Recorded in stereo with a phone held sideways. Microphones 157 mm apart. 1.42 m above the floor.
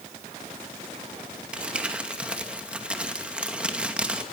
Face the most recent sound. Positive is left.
turn(degrees=-5)  # may be behind; listen again after turning